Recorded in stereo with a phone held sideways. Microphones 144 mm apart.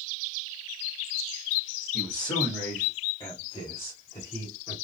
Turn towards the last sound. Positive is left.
turn(degrees=40)  # may be behind; listen again after turning